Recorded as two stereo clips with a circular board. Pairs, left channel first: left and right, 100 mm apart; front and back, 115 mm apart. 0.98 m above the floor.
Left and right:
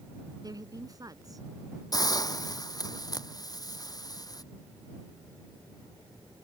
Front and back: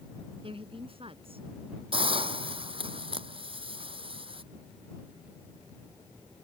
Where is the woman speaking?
140° right; by 1.8 s 145° right.